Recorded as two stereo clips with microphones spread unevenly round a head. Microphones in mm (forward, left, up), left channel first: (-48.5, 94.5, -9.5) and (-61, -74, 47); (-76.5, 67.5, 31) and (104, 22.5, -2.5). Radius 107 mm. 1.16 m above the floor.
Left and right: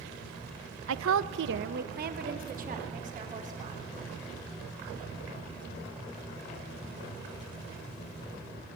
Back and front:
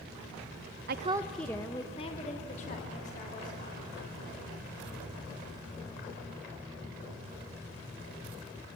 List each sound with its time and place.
0.9 s a woman speaking: 55° right, 0.5 m; by 3.8 s 140° right, 3.5 m